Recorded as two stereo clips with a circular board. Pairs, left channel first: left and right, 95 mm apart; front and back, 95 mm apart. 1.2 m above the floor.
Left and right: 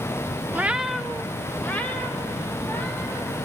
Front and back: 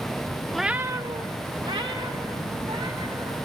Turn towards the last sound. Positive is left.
turn(degrees=155)